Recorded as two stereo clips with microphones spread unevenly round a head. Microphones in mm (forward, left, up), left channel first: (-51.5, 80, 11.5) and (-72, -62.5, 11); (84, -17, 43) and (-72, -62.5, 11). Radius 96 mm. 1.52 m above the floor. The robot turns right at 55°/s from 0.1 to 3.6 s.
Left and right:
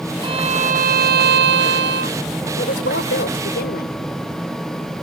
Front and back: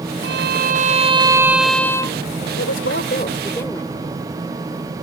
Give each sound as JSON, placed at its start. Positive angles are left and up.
{"t": 0.2, "sound": "a violin", "azimuth_deg": -155}
{"t": 2.6, "sound": "a woman speaking", "azimuth_deg": 35}